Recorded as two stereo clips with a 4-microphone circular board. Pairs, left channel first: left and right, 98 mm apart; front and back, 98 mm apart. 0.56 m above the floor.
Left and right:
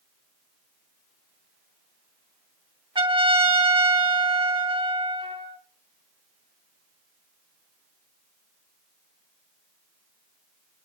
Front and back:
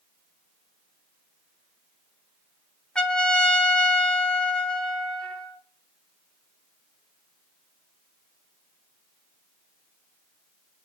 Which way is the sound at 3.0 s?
80° right.